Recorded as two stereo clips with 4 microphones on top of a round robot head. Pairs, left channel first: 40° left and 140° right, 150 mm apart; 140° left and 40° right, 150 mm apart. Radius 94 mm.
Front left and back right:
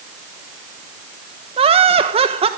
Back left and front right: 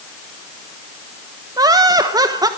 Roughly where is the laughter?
Right.